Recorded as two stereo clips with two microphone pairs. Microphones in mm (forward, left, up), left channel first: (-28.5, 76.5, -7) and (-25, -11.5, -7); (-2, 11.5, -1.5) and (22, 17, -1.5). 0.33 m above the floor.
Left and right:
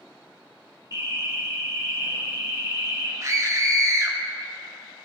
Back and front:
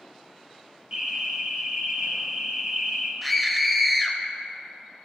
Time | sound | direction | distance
0.9 | an alarm | 40° right | 1.5 m
3.2 | a scream | 75° right | 1.0 m